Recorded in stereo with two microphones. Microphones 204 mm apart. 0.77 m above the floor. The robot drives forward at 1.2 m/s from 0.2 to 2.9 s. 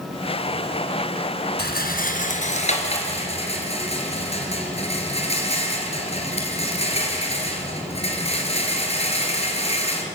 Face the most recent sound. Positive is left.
turn(degrees=30)  # may be behind; listen again after turning